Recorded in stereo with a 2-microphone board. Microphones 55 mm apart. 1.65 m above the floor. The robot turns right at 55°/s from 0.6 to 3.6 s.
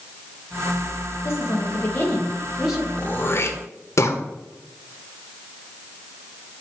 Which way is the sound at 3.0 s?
25° left (ahead or behind).